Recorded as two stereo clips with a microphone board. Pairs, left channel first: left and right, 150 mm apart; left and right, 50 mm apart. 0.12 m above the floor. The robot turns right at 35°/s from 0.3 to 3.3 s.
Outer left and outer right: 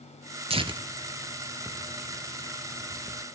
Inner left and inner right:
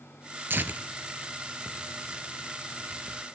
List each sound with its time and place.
0.5 s tearing paper: 40° right (ahead or behind), 0.8 m; by 3.2 s 40° left (ahead or behind), 0.8 m